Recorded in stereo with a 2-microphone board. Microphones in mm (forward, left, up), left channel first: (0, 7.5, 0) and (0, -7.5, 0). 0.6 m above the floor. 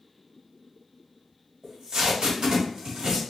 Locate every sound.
1.6 s tape being pulled: 55° right (ahead or behind), 1.9 m